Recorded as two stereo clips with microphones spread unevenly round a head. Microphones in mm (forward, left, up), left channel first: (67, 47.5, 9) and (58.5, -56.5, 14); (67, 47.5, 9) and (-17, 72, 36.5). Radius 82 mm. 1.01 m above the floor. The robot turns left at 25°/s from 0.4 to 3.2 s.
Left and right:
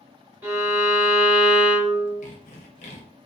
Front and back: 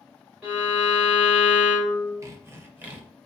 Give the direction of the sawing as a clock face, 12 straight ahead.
8 o'clock.